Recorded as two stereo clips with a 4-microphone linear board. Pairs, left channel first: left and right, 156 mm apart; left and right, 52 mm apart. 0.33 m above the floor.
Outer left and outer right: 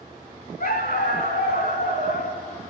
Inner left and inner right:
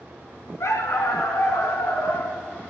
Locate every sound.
0.6 s a dog barking: 80° left, 0.9 m